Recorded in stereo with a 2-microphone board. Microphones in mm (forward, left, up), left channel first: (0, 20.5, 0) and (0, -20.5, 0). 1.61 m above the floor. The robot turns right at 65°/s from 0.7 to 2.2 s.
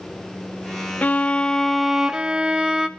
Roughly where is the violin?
Behind left.